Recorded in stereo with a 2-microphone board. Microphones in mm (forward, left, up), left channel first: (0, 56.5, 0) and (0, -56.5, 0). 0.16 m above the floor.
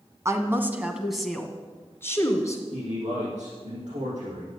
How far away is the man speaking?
About 6.5 m.